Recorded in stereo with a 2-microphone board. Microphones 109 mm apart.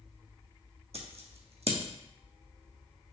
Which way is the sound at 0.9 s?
65° right (ahead or behind).